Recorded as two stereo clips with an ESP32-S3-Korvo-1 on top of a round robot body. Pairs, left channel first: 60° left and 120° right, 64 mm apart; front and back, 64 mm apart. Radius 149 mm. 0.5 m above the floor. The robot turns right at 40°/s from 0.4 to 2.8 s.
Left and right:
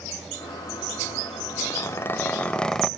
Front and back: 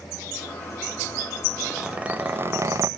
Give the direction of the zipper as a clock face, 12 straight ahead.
9 o'clock.